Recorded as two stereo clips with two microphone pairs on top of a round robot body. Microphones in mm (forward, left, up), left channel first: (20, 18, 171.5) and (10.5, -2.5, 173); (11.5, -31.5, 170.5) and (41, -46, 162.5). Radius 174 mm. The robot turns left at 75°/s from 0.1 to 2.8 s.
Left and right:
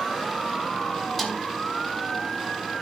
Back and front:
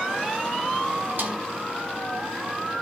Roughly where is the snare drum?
Ahead.